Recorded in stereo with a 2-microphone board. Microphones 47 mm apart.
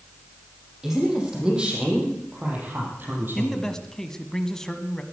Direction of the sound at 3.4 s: 10° left (ahead or behind).